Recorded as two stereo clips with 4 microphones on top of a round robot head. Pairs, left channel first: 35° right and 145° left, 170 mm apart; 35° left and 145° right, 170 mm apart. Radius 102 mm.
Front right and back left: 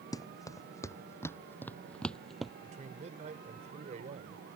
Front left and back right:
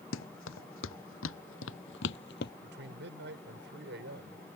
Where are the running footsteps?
35° left; by 2.5 s 55° left.